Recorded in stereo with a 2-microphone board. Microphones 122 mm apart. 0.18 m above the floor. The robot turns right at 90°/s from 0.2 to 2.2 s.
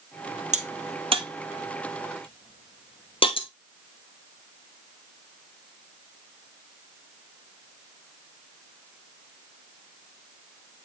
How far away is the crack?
About 1.0 m.